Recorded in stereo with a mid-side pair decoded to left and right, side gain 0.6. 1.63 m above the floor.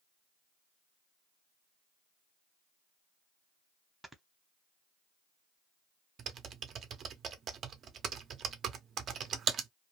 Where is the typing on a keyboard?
45° right, 0.6 m.